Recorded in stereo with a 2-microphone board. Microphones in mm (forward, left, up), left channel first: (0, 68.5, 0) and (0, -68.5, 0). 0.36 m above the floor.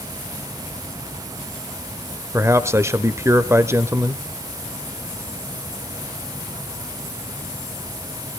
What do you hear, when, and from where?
2.3 s a man speaking: 20° right (ahead or behind), 1.0 m